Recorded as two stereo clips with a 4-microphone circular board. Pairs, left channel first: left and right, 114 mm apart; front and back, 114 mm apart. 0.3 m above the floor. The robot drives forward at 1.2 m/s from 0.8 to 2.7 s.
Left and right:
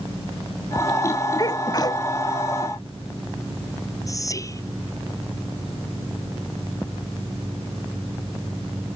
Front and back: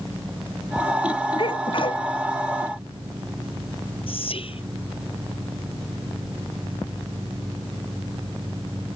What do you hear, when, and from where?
1.4 s a sneeze: 35° left
4.1 s whispering: 30° left